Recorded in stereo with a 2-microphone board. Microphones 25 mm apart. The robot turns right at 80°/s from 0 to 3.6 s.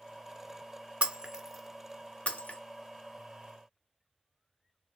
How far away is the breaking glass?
About 0.6 m.